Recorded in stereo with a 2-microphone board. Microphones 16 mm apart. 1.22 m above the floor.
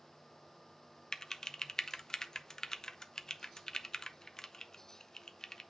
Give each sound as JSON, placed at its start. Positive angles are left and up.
{"t": 1.1, "sound": "typing on a keyboard", "side_deg": 50, "distance_m": 0.6}